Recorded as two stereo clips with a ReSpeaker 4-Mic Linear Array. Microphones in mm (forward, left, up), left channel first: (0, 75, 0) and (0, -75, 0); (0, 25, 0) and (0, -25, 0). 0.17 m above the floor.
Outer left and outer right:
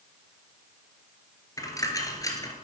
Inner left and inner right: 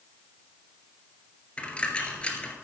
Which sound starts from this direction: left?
A dropped coin, at 1.6 s.